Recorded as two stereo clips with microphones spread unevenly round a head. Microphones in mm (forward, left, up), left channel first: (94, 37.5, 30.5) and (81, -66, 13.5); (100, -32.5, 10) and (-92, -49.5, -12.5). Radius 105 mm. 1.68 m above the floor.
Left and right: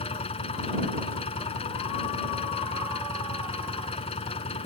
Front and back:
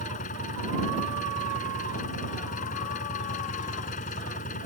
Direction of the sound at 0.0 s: 60° left.